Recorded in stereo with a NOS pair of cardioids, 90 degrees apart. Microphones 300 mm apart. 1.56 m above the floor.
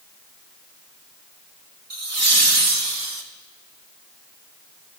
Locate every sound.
1.9 s laughter: 55° right, 3 m; by 3.2 s 70° right, 2 m